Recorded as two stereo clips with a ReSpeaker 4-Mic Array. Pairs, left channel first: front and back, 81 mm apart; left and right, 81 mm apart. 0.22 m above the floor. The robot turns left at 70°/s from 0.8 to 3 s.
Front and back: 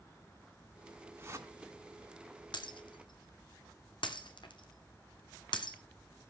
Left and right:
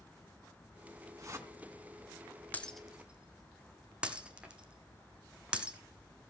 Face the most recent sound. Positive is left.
turn(degrees=-15)